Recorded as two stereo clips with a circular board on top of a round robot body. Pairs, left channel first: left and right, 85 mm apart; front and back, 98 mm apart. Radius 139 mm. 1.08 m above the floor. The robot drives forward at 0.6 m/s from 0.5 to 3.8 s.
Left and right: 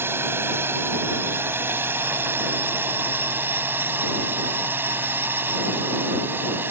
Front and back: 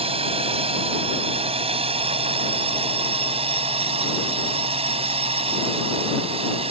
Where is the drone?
155° right; by 6.7 s 160° right.